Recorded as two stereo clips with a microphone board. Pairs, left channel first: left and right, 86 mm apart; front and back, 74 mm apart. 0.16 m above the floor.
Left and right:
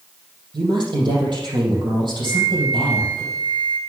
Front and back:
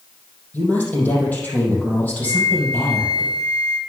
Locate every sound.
0.5 s a woman speaking: 70° right, 4.5 m
2.2 s a flute: 45° right, 1.4 m